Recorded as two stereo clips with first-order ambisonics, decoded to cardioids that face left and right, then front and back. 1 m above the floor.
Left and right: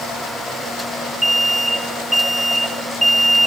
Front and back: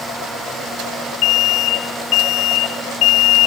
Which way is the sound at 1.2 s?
5° right.